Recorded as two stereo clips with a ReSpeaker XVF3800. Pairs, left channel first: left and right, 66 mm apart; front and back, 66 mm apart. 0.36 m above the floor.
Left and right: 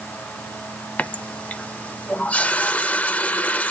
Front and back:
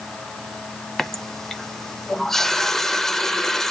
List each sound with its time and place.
1.0 s a running tap: 75° left, 0.5 m